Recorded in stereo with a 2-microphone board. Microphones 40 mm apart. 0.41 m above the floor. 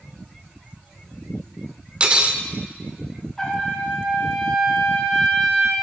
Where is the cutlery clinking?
25° right (ahead or behind), 0.5 m.